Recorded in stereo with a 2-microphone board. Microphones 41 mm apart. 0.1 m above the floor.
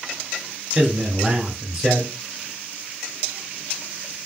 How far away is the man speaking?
About 1.3 m.